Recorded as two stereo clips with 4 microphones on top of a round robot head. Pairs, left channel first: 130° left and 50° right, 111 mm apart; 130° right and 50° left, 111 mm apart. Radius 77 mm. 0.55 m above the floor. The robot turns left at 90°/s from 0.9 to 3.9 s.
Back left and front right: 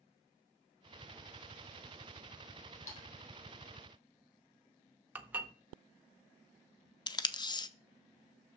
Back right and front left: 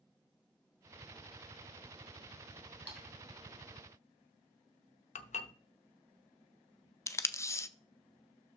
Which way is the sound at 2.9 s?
150° left.